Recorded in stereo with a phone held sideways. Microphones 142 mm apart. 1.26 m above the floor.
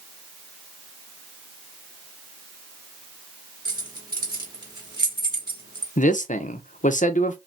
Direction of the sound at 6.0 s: 65° left (ahead or behind).